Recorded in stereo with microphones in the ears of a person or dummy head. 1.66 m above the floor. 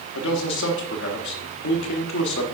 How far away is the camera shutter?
No camera shutter in this recording.